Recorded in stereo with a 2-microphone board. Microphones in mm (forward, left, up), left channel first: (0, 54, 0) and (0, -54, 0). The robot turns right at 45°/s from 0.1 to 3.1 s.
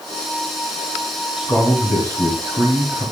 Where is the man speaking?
Straight behind, 2.5 m; by 3.1 s 100° right, 2.5 m.